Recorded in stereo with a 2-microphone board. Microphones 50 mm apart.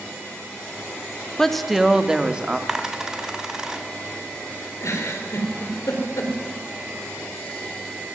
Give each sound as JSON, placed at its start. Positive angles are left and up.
{"t": 1.4, "sound": "a woman speaking", "side_deg": 5, "distance_m": 1.8}
{"t": 2.7, "sound": "a dropped coin", "side_deg": -15, "distance_m": 2.0}
{"t": 4.8, "sound": "a giggle", "side_deg": 70, "distance_m": 5.0}